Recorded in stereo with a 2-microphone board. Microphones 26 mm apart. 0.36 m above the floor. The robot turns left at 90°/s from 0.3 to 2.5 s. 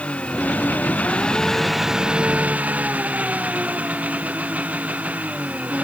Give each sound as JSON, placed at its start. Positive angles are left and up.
{"t": 0.0, "sound": "an engine running", "azimuth_deg": 125}